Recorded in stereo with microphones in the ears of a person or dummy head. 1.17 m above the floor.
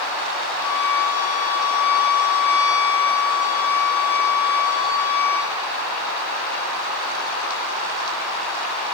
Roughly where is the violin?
Centre.